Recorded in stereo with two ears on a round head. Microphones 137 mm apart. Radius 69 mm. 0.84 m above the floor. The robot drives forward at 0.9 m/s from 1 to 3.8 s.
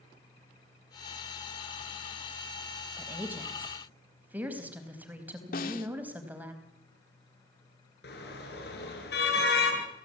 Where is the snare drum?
60° left (ahead or behind), 1.8 m.